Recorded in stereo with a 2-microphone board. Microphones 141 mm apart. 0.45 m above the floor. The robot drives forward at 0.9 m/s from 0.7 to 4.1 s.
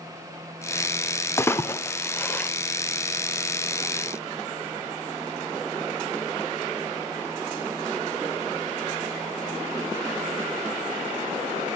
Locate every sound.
1.4 s a splash: 20° left (ahead or behind), 1.2 m; by 2.5 s 10° left (ahead or behind), 1.9 m